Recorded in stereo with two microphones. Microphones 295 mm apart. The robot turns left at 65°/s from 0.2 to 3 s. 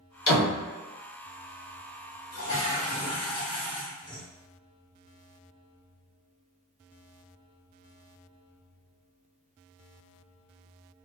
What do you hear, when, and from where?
0.3 s a door slam: 80° left, 1.1 m; by 0.6 s 75° left (ahead or behind), 1.1 m
2.3 s a toilet flushing: 60° left, 0.9 m; by 4.2 s 15° left, 0.9 m